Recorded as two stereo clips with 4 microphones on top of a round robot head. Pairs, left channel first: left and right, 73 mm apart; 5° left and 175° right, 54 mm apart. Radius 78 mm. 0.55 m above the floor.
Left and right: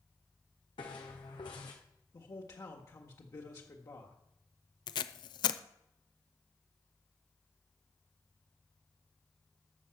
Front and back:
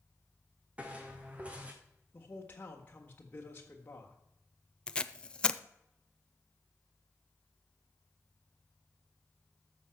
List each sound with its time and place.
0.8 s footsteps: 115° left, 1.7 m
2.1 s a man speaking: 60° left, 1.5 m
4.9 s tape being pulled: 75° left, 0.5 m